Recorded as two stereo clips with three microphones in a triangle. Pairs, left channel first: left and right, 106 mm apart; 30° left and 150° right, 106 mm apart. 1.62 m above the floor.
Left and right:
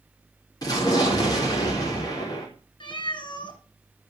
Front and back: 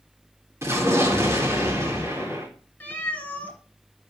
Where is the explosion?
145° left, 3.5 m.